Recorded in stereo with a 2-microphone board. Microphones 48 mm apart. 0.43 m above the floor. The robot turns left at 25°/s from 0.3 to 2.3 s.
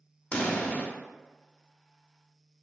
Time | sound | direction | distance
0.3 | a pop | 25° left (ahead or behind) | 0.6 m